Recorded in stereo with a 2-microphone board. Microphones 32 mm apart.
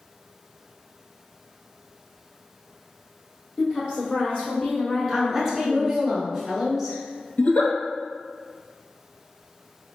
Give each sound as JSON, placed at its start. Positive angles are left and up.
{"t": 3.6, "sound": "a woman speaking", "side_deg": 30, "distance_m": 1.7}
{"t": 5.1, "sound": "a woman speaking", "side_deg": -5, "distance_m": 1.3}
{"t": 7.4, "sound": "a giggle", "side_deg": 45, "distance_m": 0.6}